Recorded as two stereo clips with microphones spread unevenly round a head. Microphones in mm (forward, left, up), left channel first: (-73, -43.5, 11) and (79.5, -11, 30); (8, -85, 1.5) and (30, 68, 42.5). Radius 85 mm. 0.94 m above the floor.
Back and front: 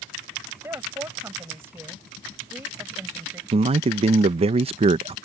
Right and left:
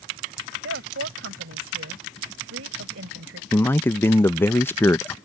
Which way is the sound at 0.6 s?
90° left.